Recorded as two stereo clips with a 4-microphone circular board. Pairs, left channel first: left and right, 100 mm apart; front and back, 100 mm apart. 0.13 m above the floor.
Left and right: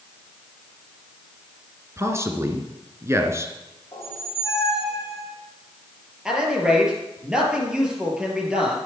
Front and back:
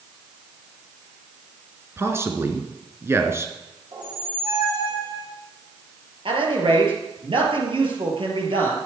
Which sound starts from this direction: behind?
A man speaking, at 6.2 s.